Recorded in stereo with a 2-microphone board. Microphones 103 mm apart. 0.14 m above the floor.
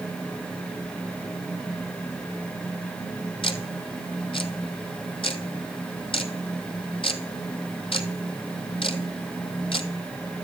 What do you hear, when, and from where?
3.4 s ticking: 60° left (ahead or behind), 0.8 m